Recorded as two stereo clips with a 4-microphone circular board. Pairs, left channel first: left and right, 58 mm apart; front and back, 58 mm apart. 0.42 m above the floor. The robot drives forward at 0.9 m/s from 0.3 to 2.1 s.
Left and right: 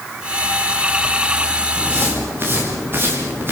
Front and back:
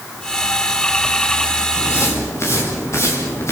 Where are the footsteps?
35° right, 8.5 m; by 3.5 s 40° right, 7.5 m.